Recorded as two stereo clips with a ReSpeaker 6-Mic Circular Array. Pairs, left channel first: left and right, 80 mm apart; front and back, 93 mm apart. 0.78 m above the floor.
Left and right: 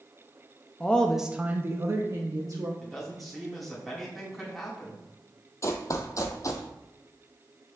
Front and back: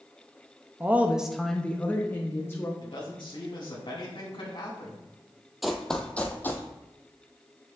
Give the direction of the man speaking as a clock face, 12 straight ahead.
12 o'clock.